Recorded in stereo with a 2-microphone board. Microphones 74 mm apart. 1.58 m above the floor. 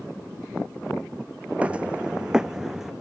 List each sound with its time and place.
1.6 s footsteps: 20° right (ahead or behind); by 2.9 s 5° right (ahead or behind)